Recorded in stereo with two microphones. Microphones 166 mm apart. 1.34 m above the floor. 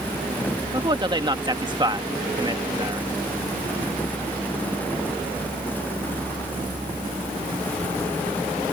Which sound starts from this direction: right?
A man speaking, at 0.7 s.